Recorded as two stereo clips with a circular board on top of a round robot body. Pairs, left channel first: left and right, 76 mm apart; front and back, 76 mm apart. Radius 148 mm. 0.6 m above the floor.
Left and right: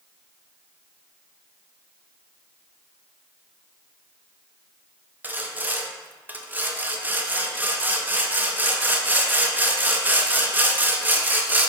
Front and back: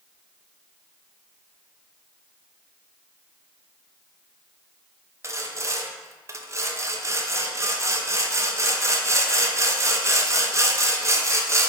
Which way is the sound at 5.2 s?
150° right.